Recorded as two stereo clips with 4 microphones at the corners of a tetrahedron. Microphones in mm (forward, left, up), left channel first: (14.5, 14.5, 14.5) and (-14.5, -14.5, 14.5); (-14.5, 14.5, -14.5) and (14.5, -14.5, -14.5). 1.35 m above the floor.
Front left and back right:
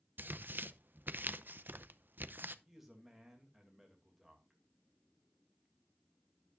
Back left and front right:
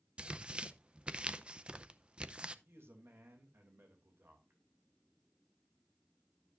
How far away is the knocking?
No knocking in this recording.